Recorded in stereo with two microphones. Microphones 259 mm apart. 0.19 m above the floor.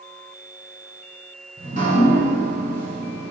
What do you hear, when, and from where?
1.6 s dripping: 30° right (ahead or behind), 1.4 m